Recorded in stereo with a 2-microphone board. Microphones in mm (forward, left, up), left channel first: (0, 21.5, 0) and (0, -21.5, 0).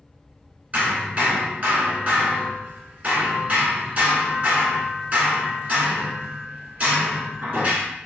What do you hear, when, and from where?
0.7 s hammering: 35° right (ahead or behind), 1.5 m